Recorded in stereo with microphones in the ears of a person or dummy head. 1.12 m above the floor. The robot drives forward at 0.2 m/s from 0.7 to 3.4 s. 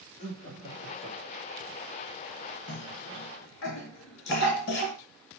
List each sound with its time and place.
0.2 s laughter: 35° left (ahead or behind), 3 m; by 1.6 s 30° left (ahead or behind), 3 m
2.7 s a cough: 60° left (ahead or behind), 1.4 m; by 5.0 s 55° left (ahead or behind), 1.5 m